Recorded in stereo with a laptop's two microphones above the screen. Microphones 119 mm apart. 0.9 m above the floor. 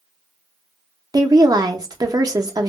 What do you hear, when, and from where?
1.1 s a woman speaking: 35° right (ahead or behind), 0.7 m